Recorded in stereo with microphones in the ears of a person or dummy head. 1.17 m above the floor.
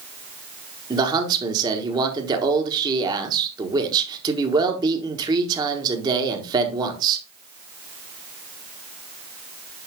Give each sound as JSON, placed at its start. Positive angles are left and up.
{"t": 0.9, "sound": "a man speaking", "side_deg": -20, "distance_m": 1.1}